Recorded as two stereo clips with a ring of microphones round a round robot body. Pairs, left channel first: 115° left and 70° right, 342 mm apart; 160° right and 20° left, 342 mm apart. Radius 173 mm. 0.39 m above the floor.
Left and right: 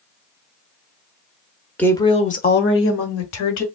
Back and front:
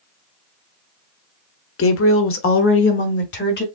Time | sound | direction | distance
1.8 | a woman speaking | 165° right | 1.0 m